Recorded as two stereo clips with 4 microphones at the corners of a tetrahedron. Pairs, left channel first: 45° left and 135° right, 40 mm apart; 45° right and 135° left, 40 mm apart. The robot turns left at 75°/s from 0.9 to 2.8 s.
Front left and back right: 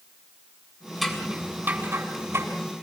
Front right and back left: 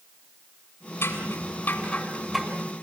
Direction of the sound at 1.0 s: 40° right.